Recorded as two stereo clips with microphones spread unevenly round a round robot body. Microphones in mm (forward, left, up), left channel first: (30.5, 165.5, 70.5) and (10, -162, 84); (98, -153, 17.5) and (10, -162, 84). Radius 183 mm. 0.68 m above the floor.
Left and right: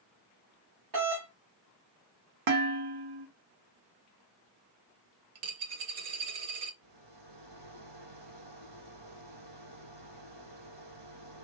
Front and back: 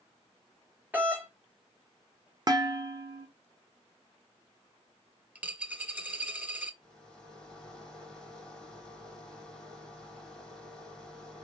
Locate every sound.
0.9 s a doorbell: 90° right, 4 m
2.5 s dishes clattering: 120° right, 1.7 m
5.3 s a dropped coin: 105° right, 1.9 m
6.8 s a rattle: 85° right, 5 m